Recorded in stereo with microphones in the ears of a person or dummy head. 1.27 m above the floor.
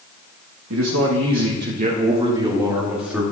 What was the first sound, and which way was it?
A man speaking, 80° right.